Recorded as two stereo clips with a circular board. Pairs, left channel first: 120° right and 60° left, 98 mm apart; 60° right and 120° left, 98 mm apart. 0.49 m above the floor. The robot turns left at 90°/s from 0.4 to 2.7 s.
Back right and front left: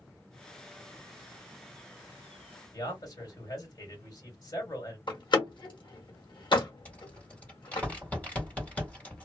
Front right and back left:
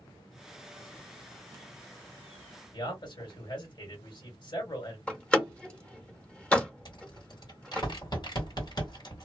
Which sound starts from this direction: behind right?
A door slam, at 5.1 s.